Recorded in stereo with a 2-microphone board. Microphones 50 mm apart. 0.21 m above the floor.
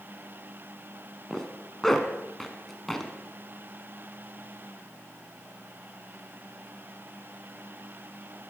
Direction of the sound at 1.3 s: 10° left (ahead or behind).